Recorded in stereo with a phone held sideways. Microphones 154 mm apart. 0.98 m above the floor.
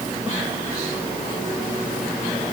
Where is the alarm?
No alarm in this recording.